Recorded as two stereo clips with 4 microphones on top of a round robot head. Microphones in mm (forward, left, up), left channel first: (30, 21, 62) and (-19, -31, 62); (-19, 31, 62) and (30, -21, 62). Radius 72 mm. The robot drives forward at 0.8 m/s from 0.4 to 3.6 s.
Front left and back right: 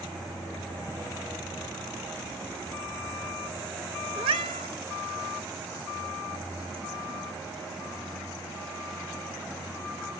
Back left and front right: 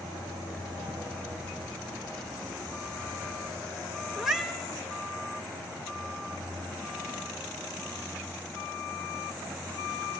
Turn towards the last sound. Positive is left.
turn(degrees=-130)